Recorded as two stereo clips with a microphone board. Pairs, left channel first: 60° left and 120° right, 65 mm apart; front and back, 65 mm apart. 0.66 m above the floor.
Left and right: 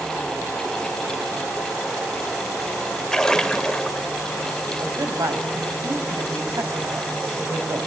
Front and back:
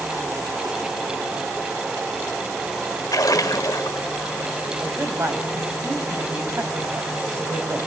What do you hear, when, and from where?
3.1 s a splash: 20° right, 1.5 m
4.8 s a man speaking: 135° right, 4 m